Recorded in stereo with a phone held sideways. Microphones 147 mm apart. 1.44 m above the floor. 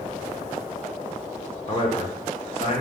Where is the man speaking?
40° left (ahead or behind), 1.0 m.